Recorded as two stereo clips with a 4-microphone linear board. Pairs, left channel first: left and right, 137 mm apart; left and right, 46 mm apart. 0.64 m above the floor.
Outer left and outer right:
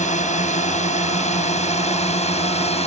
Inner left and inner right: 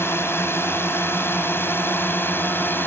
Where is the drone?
70° left (ahead or behind); by 2.9 s 55° left (ahead or behind).